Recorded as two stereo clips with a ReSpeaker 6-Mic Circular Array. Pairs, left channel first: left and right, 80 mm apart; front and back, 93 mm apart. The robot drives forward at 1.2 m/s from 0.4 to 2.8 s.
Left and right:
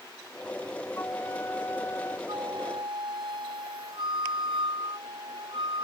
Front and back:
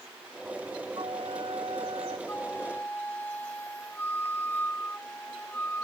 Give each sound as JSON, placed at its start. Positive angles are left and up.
{"t": 1.0, "sound": "a flute", "azimuth_deg": 155}
{"t": 2.3, "sound": "a flute", "azimuth_deg": -70}